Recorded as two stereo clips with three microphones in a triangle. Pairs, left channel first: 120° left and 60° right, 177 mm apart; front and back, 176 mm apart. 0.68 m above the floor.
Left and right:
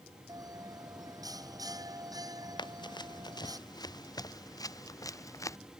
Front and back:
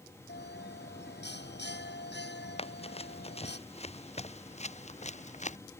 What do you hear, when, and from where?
0.3 s a bell: 10° left
2.6 s running footsteps: 55° left; by 5.6 s 45° left